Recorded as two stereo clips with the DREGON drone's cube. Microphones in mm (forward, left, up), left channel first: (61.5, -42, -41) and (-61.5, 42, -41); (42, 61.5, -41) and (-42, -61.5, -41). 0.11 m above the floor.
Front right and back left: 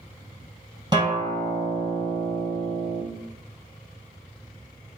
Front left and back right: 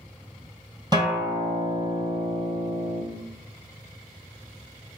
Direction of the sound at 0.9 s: 170° right.